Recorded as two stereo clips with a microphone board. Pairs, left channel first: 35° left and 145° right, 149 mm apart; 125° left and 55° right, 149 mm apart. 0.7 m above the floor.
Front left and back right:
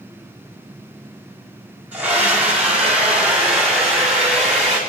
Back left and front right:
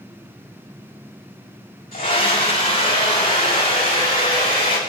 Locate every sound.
1.9 s a scream: 135° left, 5 m; by 4.8 s 125° left, 7 m